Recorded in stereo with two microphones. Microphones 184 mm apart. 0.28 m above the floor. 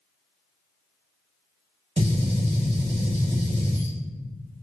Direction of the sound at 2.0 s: 30° right (ahead or behind).